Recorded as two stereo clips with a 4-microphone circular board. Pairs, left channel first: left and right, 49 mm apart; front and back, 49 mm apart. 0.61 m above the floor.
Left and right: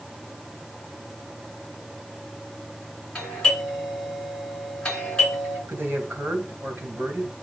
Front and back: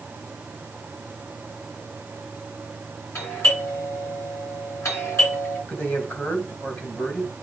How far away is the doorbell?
About 7.5 m.